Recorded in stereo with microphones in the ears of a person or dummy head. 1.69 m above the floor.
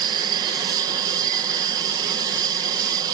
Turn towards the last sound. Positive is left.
turn(degrees=-30)  # may be behind; listen again after turning